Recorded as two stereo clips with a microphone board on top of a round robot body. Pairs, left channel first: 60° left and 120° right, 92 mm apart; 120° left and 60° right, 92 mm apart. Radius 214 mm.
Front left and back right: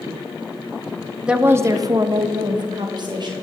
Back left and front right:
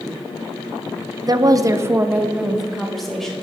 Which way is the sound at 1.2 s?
45° right.